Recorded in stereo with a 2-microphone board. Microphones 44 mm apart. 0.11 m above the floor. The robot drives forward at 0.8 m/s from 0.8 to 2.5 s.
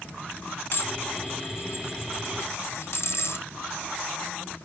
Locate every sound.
0.7 s dishes clattering: 50° left (ahead or behind), 4.5 m; by 3.5 s 65° left (ahead or behind), 3.5 m